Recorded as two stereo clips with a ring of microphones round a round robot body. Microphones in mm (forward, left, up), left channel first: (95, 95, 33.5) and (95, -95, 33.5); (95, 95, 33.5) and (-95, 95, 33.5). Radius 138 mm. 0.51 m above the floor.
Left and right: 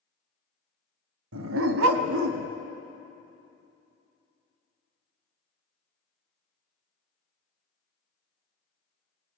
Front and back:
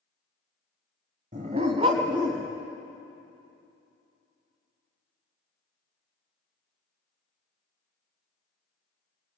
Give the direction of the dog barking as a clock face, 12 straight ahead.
4 o'clock.